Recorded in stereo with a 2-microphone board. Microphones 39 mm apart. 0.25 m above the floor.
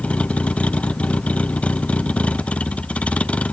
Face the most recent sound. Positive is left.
turn(degrees=30)  # may be behind; listen again after turning